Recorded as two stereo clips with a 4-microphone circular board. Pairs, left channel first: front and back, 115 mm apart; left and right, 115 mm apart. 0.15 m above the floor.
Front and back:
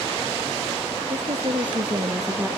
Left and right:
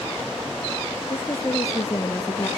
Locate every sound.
1.1 s a woman speaking: 150° left, 3 m; by 2.5 s 120° left, 1.3 m